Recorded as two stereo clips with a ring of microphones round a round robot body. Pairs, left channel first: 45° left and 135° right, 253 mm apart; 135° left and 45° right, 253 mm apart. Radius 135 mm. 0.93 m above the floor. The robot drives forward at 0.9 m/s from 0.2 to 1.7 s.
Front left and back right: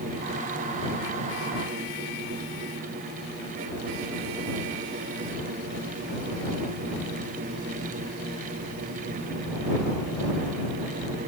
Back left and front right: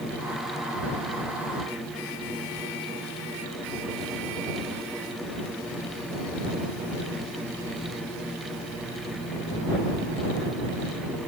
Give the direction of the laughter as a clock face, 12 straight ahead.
I don't hear laughter.